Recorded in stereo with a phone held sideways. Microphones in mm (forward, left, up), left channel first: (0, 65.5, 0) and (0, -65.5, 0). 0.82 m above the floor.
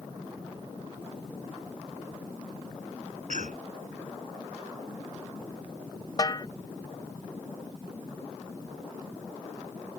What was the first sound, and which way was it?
A cough, 70° right (ahead or behind).